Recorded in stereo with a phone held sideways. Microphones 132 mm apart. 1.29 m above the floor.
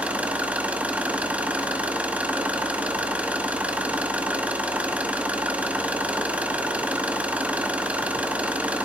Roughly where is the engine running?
Centre.